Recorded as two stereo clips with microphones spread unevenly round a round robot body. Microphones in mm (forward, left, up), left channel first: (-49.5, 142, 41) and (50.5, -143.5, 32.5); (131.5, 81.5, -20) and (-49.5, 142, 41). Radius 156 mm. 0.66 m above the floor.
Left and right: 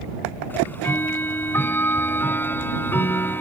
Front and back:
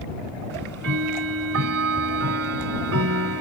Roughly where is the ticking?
Behind.